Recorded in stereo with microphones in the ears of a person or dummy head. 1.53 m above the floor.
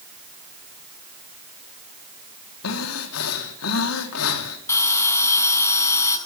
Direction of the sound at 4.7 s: 15° left (ahead or behind).